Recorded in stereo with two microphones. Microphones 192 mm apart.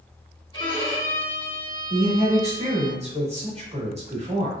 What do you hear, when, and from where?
0.5 s a violin: 25° left (ahead or behind), 1.6 m
1.9 s a woman speaking: 35° right (ahead or behind), 1.1 m